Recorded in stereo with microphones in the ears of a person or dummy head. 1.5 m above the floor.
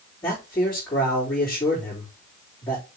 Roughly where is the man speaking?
Centre.